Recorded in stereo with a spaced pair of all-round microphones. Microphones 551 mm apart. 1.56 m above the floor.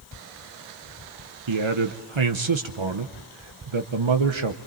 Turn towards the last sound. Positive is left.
turn(degrees=-55)  # may be behind; listen again after turning